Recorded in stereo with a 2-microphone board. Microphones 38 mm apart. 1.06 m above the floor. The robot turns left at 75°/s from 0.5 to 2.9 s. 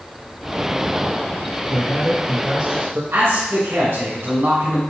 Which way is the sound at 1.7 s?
45° left.